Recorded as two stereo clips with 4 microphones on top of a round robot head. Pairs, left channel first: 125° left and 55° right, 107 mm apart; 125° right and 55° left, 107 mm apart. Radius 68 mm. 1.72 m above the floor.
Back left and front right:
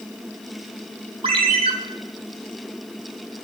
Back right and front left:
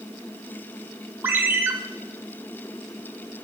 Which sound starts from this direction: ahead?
A ringtone, at 1.2 s.